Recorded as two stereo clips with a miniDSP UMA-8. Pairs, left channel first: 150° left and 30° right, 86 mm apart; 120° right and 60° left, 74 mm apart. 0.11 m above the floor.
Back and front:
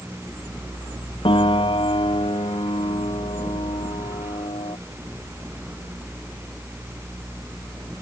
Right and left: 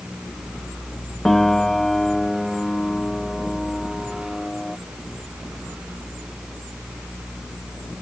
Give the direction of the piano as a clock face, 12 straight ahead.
7 o'clock.